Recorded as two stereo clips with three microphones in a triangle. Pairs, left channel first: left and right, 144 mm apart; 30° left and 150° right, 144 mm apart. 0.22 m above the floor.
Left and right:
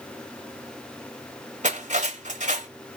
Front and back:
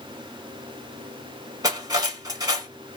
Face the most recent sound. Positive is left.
turn(degrees=-90)